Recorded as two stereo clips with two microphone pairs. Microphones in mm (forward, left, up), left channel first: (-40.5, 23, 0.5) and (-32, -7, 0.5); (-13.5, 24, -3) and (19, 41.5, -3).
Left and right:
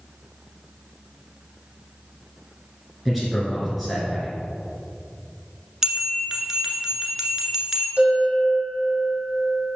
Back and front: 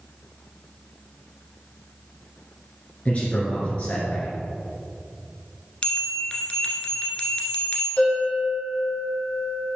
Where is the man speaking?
155° right, 1.7 m.